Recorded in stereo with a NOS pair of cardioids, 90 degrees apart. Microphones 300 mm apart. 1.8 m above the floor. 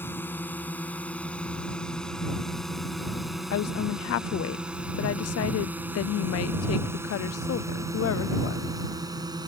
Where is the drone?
5° left; by 9.5 s 15° right.